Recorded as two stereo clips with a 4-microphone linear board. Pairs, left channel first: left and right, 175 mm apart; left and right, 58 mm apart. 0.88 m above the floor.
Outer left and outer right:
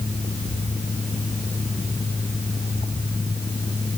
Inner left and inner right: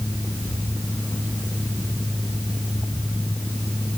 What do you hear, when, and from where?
Only background noise.